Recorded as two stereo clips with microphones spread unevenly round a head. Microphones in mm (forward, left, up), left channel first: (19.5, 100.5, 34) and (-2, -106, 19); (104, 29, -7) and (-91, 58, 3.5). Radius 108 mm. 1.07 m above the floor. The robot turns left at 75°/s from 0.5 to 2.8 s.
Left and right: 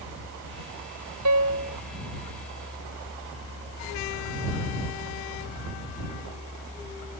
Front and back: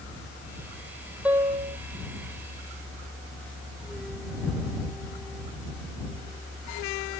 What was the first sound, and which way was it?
A piano, 105° right.